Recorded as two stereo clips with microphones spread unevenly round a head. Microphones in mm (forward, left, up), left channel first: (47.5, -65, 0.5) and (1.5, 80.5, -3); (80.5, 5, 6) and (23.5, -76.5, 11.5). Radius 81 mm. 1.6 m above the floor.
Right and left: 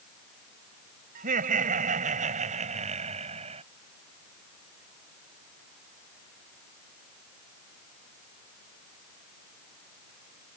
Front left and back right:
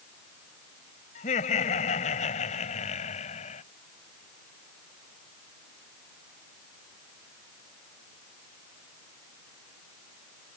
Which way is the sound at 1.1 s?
75° left.